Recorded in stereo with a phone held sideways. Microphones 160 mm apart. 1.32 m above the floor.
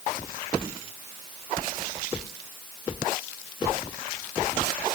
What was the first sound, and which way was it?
Only background noise.